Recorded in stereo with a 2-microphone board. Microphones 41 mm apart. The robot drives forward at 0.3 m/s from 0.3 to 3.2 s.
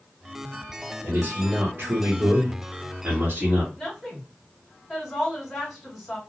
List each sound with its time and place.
1.0 s a man speaking: 55° right (ahead or behind), 1.0 m; by 3.7 s 50° right (ahead or behind), 1.0 m
3.8 s a woman speaking: 5° right (ahead or behind), 1.7 m